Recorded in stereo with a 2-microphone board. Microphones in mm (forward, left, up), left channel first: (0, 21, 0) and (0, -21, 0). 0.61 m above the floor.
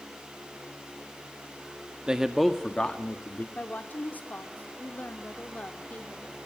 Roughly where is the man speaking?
Right.